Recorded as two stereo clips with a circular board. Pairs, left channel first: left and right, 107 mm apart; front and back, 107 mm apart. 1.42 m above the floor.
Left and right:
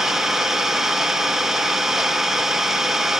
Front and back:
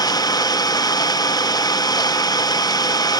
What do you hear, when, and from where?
0.0 s an engine running: 5° right, 0.9 m